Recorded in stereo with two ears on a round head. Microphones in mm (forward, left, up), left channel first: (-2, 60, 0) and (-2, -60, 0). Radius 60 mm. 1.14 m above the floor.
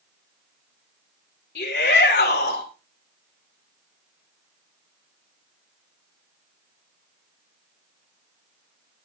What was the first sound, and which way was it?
A shout, 90° left.